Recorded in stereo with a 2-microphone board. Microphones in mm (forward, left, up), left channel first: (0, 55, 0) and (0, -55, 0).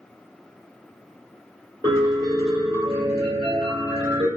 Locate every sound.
1.8 s a piano: 40° right (ahead or behind), 1.4 m